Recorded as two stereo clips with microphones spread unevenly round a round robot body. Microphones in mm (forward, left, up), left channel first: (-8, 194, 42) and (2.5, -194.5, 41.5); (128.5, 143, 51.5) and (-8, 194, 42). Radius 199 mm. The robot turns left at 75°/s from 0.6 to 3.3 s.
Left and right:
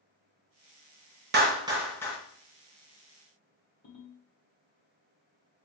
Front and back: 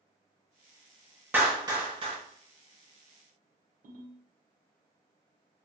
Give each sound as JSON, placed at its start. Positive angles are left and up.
{"t": 1.3, "sound": "a clap", "azimuth_deg": -135, "distance_m": 0.7}
{"t": 3.8, "sound": "a ringtone", "azimuth_deg": 155, "distance_m": 1.6}